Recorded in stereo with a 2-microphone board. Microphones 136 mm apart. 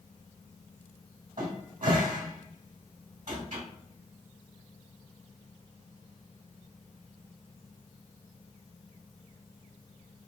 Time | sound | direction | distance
1.4 | a cupboard door | 80° right | 1.3 m